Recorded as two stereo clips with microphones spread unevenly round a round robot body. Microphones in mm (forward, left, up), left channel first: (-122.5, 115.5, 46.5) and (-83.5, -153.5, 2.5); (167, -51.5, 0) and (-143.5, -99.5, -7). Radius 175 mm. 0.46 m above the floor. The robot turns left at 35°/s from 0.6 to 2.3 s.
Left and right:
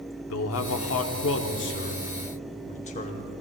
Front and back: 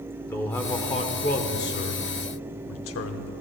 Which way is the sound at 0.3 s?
90° left.